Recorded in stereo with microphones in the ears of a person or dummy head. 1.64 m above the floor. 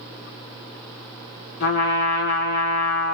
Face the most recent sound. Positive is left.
turn(degrees=45)  # may be behind; listen again after turning